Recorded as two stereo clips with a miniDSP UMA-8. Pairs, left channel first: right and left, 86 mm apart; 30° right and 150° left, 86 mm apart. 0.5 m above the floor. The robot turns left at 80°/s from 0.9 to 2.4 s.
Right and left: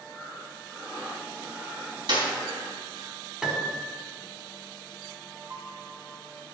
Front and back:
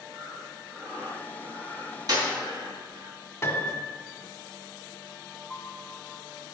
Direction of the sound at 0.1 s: 140° right.